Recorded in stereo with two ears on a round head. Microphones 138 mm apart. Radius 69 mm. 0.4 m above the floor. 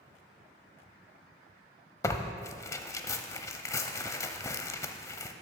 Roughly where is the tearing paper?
Centre.